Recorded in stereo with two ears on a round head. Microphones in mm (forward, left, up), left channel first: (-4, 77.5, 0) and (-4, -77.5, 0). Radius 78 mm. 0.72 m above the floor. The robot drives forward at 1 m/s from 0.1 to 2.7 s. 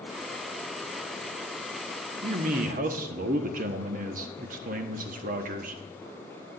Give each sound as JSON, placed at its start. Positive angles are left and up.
{"t": 2.2, "sound": "a man speaking", "side_deg": -45, "distance_m": 1.2}